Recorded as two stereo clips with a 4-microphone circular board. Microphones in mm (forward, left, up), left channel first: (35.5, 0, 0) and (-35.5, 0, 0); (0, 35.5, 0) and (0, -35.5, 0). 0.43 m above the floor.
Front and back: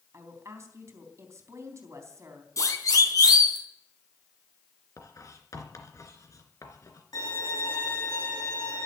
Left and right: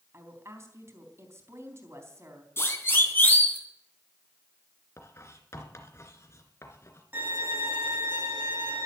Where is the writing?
40° left, 2.5 m.